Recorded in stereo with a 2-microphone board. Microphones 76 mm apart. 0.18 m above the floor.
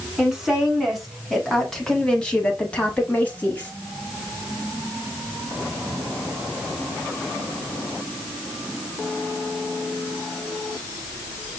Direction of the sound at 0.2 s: 5° right (ahead or behind).